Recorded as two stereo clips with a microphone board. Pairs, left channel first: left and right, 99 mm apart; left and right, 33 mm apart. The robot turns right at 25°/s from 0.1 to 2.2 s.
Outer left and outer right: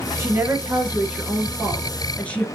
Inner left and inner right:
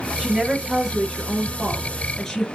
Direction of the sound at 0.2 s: 35° right.